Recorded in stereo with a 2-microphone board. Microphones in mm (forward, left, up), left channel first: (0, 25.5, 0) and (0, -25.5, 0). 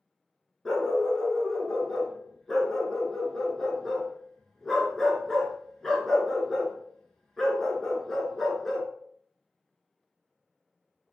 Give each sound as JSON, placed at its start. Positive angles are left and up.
{"t": 0.7, "sound": "a dog barking", "side_deg": 5, "distance_m": 0.7}